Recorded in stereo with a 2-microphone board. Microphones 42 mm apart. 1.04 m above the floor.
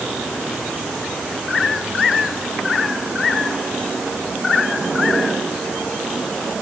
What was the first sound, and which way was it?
Only background noise.